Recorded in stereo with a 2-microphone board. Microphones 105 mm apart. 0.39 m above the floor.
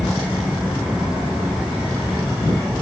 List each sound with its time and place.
Only background noise.